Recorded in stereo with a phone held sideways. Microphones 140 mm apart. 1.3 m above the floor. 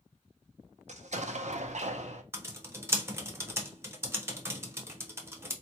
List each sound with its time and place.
0.9 s an explosion: 55° right (ahead or behind), 0.5 m
2.3 s typing on a keyboard: 20° right (ahead or behind), 0.7 m